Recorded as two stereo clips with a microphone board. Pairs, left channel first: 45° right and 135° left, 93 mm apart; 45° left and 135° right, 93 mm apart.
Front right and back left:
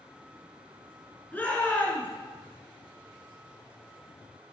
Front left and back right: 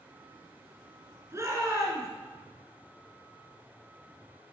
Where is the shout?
105° right, 1.9 m.